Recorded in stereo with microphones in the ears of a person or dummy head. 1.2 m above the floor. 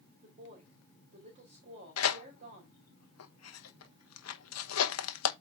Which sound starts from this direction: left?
Tearing paper, at 2.0 s.